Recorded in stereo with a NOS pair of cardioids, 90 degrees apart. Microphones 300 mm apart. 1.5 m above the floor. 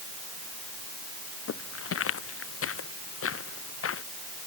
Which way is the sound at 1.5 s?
50° left.